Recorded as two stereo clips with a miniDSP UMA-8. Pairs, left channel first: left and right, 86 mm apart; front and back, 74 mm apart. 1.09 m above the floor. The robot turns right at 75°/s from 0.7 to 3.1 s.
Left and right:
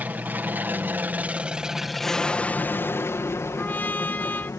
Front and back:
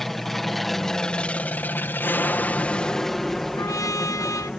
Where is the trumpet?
25° left.